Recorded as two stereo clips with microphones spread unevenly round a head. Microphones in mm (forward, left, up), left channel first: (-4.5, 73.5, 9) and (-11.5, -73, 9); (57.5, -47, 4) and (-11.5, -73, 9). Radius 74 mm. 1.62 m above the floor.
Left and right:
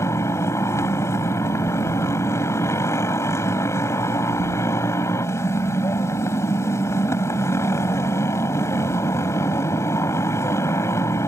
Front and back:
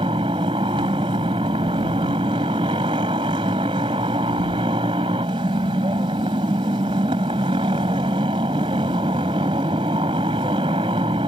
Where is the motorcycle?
160° left.